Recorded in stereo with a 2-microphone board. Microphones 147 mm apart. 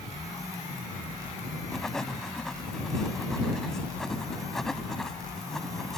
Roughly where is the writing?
Centre.